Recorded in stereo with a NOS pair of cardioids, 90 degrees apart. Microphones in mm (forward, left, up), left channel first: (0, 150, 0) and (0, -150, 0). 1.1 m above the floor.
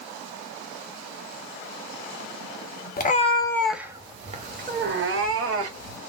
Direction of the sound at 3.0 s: 30° left.